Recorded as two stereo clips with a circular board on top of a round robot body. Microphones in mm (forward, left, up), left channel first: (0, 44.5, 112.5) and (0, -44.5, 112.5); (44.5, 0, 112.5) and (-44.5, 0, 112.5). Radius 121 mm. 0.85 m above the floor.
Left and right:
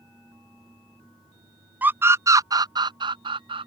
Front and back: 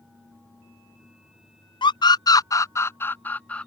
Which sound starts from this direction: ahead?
A scream, at 1.8 s.